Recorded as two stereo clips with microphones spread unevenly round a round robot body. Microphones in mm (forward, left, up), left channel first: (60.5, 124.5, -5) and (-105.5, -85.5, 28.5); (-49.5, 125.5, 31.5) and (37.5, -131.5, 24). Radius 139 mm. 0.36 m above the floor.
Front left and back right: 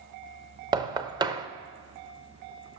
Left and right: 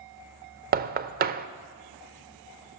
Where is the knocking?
55° right, 0.5 m.